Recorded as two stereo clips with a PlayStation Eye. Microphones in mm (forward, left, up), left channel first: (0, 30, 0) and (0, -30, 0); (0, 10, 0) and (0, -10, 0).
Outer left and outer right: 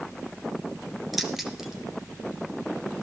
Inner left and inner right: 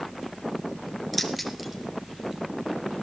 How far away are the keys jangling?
About 1.8 m.